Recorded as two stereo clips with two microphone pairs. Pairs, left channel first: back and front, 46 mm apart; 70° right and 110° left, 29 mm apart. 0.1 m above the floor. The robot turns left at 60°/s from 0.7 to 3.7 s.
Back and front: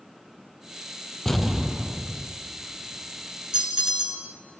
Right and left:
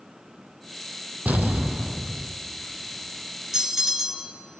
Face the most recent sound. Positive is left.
turn(degrees=40)